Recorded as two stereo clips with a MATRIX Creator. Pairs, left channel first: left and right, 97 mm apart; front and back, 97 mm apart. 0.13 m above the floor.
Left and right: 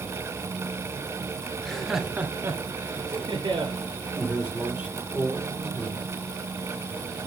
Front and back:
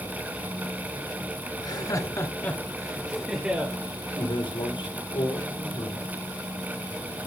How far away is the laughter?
About 1.8 m.